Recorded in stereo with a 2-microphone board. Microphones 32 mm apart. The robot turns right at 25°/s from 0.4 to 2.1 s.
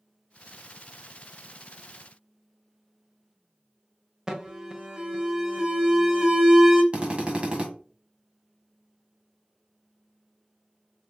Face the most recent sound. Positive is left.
turn(degrees=-35)  # may be behind; listen again after turning